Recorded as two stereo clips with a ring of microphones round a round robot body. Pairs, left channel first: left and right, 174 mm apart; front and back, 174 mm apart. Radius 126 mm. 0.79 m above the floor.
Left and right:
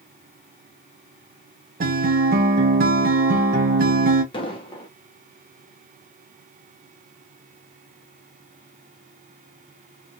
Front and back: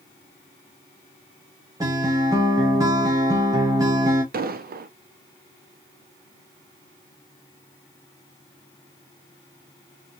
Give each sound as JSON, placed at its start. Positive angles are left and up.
{"t": 1.8, "sound": "a guitar", "azimuth_deg": -110, "distance_m": 0.7}
{"t": 4.3, "sound": "an explosion", "azimuth_deg": 155, "distance_m": 0.7}